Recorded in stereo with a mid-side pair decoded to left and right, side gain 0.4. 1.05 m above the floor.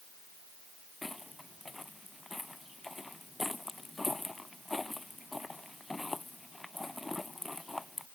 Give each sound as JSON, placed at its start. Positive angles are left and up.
{"t": 1.0, "sound": "footsteps", "azimuth_deg": 15}